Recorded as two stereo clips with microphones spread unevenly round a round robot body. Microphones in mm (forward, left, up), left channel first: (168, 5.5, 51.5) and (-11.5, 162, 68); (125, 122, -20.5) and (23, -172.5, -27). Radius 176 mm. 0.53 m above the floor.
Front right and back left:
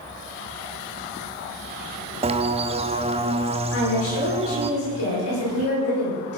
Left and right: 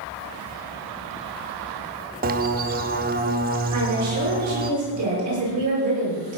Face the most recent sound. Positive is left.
turn(degrees=-80)